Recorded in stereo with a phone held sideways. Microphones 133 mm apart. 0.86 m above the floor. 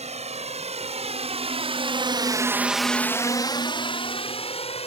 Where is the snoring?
No snoring in this recording.